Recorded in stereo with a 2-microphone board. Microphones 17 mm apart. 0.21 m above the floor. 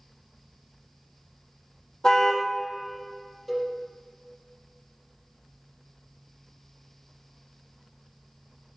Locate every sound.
2.0 s a car horn: 55° left (ahead or behind), 3 m
3.5 s a cowbell: 10° left (ahead or behind), 4.5 m